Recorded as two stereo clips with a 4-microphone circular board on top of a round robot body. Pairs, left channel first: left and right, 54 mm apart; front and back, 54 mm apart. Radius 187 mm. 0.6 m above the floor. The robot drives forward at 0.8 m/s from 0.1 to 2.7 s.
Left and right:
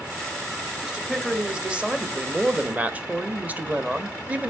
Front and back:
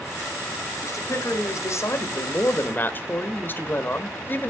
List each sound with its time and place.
0.8 s a man speaking: 15° right, 2.5 m; by 4.5 s 35° right, 1.3 m